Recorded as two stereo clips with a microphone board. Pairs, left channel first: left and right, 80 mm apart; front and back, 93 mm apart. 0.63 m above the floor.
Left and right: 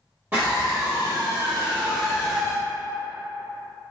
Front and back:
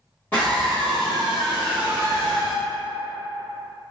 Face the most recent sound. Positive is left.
turn(degrees=-175)